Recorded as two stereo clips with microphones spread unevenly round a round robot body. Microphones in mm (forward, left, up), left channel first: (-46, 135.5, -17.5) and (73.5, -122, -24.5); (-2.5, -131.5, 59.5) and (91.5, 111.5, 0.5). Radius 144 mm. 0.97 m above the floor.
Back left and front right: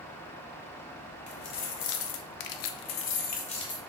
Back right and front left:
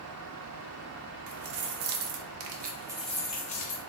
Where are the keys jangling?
75° left, 1.0 m; by 3.8 s 170° right, 0.8 m.